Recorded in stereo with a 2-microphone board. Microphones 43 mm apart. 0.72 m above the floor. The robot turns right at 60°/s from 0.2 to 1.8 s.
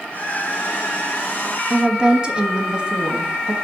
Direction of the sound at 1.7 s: 25° right (ahead or behind).